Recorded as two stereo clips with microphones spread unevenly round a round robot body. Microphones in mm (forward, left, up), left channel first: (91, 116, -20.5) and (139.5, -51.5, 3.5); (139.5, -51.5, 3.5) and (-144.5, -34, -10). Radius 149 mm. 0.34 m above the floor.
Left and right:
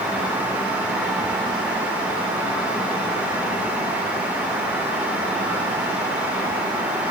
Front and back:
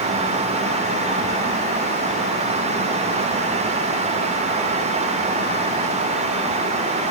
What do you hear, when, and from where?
Only background noise.